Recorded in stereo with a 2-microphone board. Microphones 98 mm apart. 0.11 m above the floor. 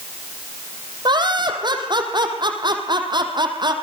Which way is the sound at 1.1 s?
50° right (ahead or behind).